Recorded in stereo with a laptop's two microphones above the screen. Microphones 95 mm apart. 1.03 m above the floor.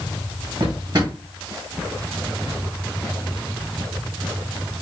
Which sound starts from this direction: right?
A drawer, at 0.6 s.